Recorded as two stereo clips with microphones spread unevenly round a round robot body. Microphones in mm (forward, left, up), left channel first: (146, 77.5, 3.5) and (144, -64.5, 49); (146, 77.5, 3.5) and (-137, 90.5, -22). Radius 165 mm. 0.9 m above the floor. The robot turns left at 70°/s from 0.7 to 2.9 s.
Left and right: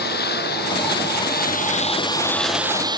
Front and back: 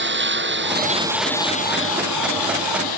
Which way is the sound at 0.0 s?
125° left.